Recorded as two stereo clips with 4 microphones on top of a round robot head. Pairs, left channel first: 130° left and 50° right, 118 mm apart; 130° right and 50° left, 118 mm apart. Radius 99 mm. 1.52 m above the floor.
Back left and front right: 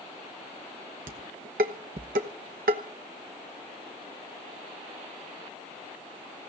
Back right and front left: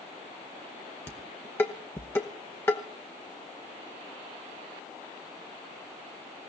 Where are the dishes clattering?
60° right, 1.0 m.